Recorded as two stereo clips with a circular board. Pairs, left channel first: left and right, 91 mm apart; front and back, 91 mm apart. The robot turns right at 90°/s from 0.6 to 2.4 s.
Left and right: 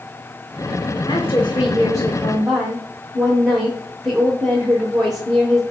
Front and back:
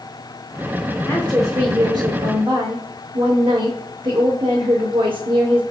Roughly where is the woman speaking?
Ahead left.